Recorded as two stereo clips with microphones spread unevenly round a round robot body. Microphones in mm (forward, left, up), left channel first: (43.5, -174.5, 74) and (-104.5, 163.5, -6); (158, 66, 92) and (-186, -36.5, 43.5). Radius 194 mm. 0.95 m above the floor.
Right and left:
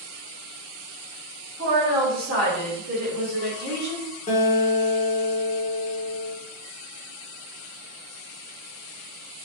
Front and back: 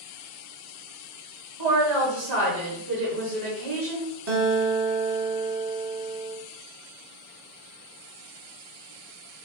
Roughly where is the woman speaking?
Behind.